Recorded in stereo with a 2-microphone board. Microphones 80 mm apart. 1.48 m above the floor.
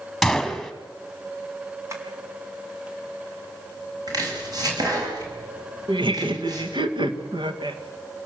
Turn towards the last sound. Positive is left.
turn(degrees=-85)